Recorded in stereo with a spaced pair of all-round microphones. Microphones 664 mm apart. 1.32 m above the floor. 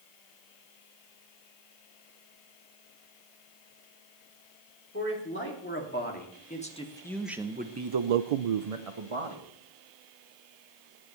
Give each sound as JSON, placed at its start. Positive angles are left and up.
{"t": 4.9, "sound": "a man speaking", "side_deg": 20, "distance_m": 3.5}